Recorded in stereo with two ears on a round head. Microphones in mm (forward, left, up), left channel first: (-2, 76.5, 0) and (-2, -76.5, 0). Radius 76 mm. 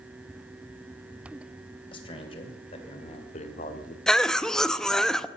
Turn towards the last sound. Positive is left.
turn(degrees=5)  # may be behind; listen again after turning